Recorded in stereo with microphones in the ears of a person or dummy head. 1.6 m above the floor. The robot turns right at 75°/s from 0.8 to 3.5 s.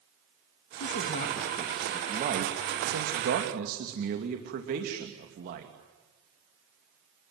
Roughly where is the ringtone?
No ringtone in this recording.